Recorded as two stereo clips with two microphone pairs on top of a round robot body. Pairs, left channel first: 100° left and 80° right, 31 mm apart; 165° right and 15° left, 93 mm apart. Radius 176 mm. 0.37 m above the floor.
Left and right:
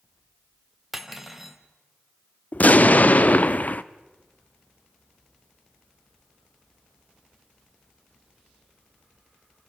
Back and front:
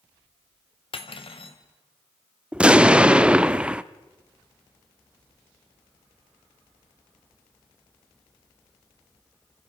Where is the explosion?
90° left, 0.9 m.